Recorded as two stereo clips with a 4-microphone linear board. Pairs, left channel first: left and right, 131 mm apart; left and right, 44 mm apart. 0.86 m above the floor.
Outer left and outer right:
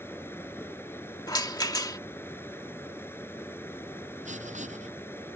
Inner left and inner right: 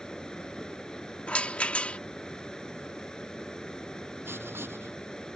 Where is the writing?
65° right (ahead or behind).